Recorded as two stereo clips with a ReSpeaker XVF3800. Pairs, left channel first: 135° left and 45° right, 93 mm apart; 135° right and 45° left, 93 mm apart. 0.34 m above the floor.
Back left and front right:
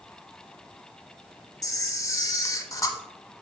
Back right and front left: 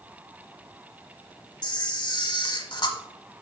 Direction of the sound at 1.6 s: 170° right.